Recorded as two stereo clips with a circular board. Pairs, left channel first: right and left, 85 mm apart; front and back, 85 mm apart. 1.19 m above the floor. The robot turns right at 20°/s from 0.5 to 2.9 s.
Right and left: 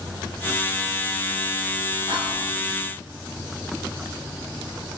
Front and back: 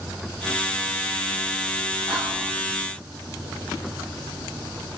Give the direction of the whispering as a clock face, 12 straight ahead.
9 o'clock.